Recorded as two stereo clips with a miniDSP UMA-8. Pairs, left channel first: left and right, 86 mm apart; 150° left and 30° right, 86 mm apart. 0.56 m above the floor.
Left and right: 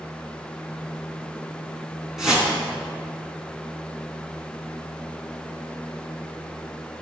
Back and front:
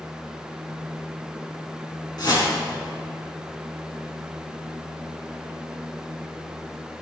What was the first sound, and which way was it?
A whoosh, 175° right.